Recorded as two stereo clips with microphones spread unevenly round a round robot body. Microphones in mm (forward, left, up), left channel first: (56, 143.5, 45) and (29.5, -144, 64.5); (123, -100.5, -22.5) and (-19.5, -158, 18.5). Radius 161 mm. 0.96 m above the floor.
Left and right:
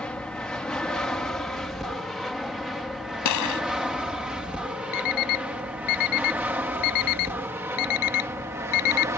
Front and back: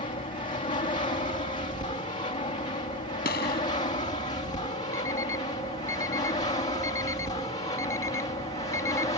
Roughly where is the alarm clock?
Left.